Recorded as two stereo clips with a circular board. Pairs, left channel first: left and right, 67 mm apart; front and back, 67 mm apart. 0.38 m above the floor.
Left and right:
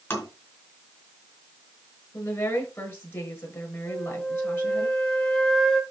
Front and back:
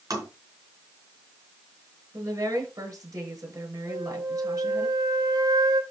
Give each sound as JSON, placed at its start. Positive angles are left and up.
{"t": 0.1, "sound": "tapping", "azimuth_deg": 150, "distance_m": 5.0}
{"t": 2.1, "sound": "a woman speaking", "azimuth_deg": 145, "distance_m": 5.5}
{"t": 3.9, "sound": "a flute", "azimuth_deg": 170, "distance_m": 1.6}